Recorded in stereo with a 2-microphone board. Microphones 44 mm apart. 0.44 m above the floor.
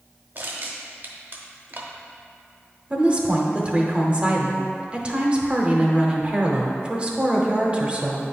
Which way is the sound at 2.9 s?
25° right (ahead or behind).